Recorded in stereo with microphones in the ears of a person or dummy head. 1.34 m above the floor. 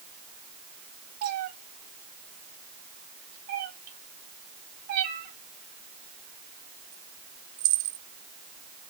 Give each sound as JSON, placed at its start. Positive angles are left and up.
{"t": 1.2, "sound": "a cat meowing", "side_deg": -35, "distance_m": 0.7}